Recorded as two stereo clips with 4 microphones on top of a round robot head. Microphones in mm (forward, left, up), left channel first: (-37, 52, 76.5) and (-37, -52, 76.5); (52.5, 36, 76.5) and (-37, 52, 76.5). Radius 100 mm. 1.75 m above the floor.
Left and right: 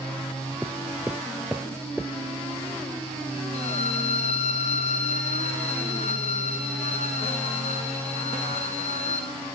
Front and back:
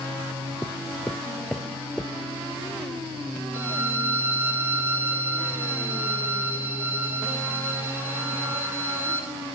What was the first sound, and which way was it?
Footsteps, 20° right.